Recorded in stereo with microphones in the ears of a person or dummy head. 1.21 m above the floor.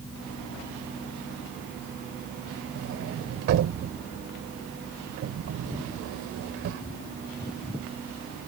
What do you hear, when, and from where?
2.8 s a sliding door: 65° right (ahead or behind)